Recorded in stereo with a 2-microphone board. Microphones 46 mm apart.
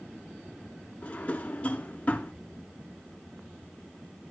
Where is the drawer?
30° left (ahead or behind), 0.8 m.